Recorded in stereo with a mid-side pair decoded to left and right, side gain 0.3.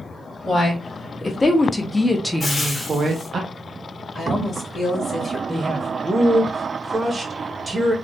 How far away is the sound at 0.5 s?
About 1.7 m.